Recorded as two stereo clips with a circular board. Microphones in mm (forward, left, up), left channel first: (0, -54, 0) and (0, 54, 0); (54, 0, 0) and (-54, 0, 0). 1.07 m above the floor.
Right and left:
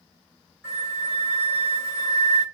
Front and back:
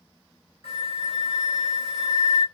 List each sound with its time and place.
0.6 s a flute: 25° right, 2 m